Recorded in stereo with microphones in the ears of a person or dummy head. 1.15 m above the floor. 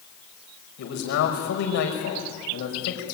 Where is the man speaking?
50° left (ahead or behind), 5 m.